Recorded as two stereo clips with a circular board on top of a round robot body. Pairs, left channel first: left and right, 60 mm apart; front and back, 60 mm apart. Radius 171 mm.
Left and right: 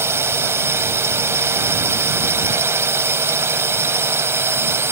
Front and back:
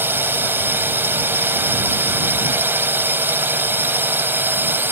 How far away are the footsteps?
I don't hear footsteps.